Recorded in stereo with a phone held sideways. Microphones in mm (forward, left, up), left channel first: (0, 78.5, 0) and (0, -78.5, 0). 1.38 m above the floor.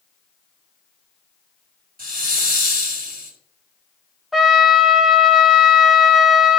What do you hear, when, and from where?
2.0 s a hiss: 65° right (ahead or behind), 4 m
4.3 s a trumpet: centre (ahead or behind), 1.1 m